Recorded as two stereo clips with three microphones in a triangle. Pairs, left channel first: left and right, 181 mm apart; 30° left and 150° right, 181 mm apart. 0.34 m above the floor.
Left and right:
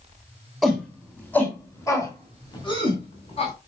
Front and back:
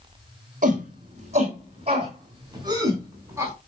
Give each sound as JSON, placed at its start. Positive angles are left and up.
{"t": 0.6, "sound": "a shout", "azimuth_deg": 180, "distance_m": 3.0}